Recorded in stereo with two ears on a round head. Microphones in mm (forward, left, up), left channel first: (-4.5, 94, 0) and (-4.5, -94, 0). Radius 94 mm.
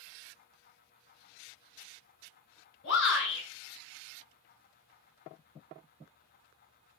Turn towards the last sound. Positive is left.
turn(degrees=55)  # may be behind; listen again after turning